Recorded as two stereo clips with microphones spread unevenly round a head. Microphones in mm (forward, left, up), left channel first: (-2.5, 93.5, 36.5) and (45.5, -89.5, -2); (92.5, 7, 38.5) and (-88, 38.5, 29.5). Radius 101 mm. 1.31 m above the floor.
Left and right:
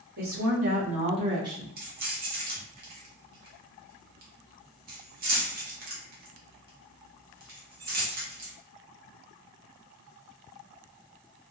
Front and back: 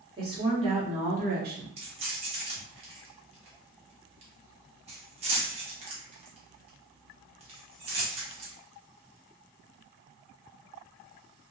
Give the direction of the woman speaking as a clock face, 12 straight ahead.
4 o'clock.